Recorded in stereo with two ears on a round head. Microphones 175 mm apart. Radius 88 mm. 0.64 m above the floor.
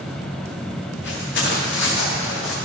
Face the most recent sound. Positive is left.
turn(degrees=70)  # may be behind; listen again after turning